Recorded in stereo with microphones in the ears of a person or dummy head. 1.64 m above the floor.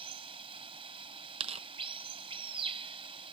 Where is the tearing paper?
30° right (ahead or behind).